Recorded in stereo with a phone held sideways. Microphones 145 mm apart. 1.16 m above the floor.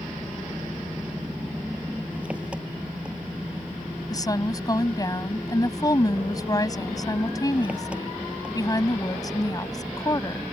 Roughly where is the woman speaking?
Left.